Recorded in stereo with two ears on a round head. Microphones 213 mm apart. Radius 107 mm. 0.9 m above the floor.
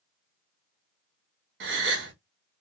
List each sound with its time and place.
1.6 s a gasp: 50° right (ahead or behind), 1.0 m